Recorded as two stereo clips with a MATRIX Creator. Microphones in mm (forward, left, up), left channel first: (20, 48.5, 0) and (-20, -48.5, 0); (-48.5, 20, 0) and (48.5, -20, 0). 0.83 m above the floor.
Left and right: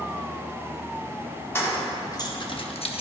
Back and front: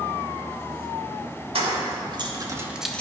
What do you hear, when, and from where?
1.6 s keys jangling: straight ahead, 1.4 m; by 3.0 s 80° left, 0.7 m